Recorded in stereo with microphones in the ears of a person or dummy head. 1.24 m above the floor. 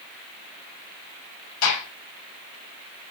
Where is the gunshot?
90° left, 7.5 m.